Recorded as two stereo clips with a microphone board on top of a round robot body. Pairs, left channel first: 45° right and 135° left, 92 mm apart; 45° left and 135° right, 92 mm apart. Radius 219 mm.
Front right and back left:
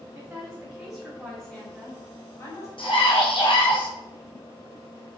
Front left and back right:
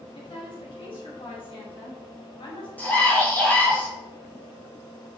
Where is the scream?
30° right, 3.5 m.